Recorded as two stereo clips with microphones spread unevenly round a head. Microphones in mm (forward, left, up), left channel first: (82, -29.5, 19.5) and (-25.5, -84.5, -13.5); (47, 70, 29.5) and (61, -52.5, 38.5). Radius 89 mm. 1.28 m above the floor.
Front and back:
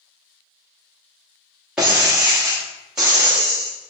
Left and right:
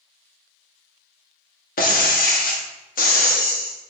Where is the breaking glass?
110° left, 1.1 m.